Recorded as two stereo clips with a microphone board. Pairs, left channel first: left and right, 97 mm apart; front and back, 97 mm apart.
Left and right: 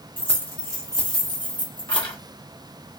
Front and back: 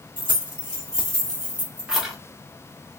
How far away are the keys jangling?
About 1.4 m.